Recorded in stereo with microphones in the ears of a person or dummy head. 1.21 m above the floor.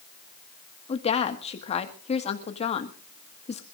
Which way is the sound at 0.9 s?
35° left (ahead or behind).